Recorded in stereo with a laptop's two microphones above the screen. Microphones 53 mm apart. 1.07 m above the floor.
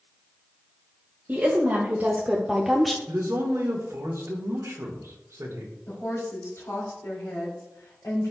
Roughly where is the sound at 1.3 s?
Right.